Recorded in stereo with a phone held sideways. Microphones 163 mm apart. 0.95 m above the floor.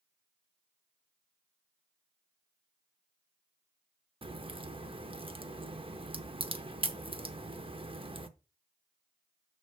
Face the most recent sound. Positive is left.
turn(degrees=-35)  # may be behind; listen again after turning